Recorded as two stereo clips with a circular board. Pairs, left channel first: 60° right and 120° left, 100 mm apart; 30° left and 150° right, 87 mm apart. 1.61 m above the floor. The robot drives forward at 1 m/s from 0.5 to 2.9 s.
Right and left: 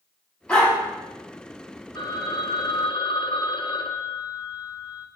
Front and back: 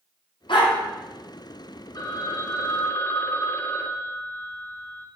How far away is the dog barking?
About 4 m.